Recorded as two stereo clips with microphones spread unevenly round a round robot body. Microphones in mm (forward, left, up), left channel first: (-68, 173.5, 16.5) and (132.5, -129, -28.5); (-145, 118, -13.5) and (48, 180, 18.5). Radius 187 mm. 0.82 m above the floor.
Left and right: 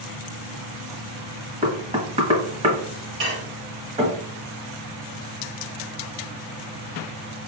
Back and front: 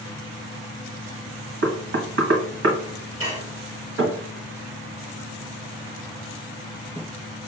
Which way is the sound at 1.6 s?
5° left.